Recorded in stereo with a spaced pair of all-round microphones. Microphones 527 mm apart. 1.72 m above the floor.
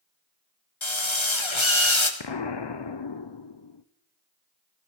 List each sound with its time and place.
0.8 s a drill: 65° left (ahead or behind), 1.8 m
2.2 s an explosion: 55° left (ahead or behind), 0.7 m